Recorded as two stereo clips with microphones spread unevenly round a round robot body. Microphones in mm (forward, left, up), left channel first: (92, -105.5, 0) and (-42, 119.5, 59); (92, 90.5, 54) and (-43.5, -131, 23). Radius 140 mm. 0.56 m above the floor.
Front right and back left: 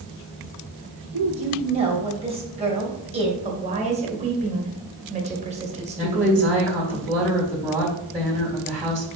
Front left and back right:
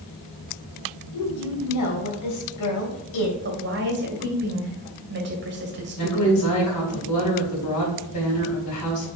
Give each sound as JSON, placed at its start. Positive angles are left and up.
{"t": 1.1, "sound": "a woman speaking", "azimuth_deg": 50, "distance_m": 3.0}
{"t": 3.4, "sound": "a woman speaking", "azimuth_deg": -170, "distance_m": 2.0}
{"t": 6.0, "sound": "a woman speaking", "azimuth_deg": 45, "distance_m": 3.5}